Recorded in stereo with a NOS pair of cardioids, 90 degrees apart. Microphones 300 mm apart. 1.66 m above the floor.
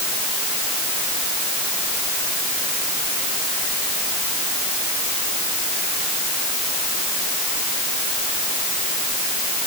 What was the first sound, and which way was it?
Only background noise.